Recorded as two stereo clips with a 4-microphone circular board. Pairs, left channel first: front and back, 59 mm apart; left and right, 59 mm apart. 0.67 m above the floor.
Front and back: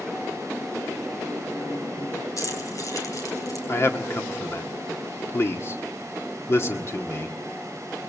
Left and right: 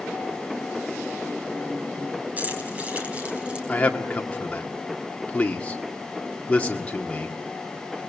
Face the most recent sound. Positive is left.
turn(degrees=30)